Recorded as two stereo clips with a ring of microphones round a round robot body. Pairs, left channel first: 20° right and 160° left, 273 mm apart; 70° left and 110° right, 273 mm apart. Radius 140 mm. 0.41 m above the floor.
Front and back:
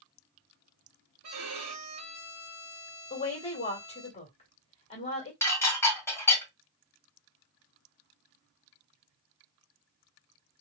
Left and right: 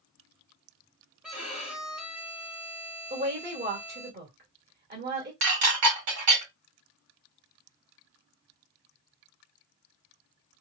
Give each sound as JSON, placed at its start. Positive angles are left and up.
{"t": 1.2, "sound": "a violin", "azimuth_deg": 160, "distance_m": 1.1}
{"t": 3.1, "sound": "a woman speaking", "azimuth_deg": -80, "distance_m": 1.7}
{"t": 5.4, "sound": "dishes clattering", "azimuth_deg": -105, "distance_m": 1.4}